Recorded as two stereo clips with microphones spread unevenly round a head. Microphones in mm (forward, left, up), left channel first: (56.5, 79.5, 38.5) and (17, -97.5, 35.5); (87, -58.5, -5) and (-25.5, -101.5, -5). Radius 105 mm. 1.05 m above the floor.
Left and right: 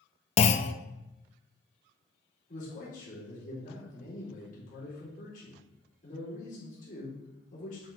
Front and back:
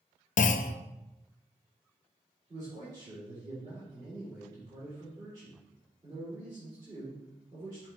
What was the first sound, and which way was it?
A clunk, 25° left.